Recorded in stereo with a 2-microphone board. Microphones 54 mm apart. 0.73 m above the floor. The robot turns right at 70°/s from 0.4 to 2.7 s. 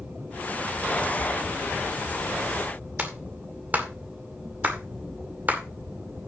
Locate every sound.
3.0 s a clap: 35° right (ahead or behind), 2 m